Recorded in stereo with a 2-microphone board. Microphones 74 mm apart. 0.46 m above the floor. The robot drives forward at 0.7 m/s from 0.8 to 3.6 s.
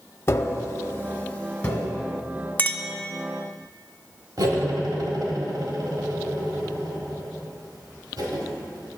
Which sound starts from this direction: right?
Cutlery clinking, at 4.4 s.